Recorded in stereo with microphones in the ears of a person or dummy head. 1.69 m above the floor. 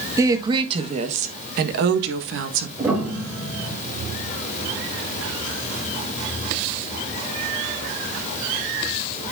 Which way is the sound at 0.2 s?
15° right (ahead or behind).